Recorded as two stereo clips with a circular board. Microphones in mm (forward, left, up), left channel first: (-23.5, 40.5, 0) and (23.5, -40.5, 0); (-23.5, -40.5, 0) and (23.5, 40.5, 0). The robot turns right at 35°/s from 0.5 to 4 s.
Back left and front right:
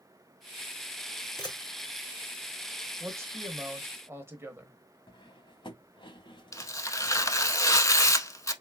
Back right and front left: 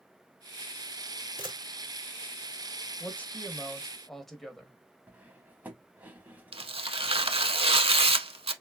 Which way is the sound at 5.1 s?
130° left.